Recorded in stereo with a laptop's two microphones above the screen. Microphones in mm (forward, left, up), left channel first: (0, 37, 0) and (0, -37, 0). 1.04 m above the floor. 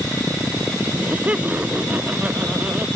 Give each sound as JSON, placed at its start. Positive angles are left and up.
{"t": 0.9, "sound": "laughter", "side_deg": -20}